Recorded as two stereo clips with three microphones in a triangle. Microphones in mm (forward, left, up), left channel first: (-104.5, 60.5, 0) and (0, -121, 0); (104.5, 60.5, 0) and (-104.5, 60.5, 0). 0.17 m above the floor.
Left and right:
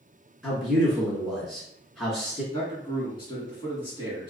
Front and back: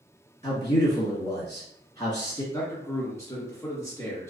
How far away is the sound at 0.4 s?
About 1.6 m.